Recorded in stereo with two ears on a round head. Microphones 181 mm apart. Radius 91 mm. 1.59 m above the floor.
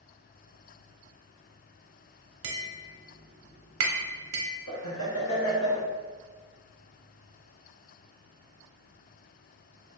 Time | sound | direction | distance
2.4 | tapping | 75° right (ahead or behind) | 0.6 m
4.7 | laughter | 80° left | 0.9 m